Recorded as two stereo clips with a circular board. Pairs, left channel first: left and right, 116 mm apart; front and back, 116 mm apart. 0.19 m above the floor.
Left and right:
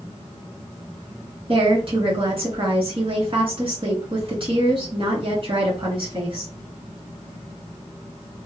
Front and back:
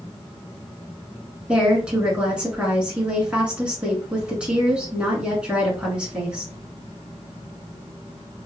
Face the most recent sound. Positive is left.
turn(degrees=-100)